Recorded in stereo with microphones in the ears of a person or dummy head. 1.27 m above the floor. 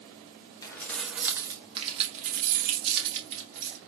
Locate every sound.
0.6 s keys jangling: 15° left (ahead or behind), 0.8 m; by 3.8 s 70° right (ahead or behind), 1.5 m